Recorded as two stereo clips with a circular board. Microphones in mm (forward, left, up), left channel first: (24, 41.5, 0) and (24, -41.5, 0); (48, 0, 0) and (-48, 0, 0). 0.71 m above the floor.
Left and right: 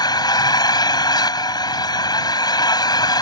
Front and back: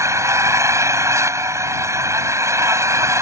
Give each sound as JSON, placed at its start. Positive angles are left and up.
{"t": 0.0, "sound": "an engine running", "azimuth_deg": 120}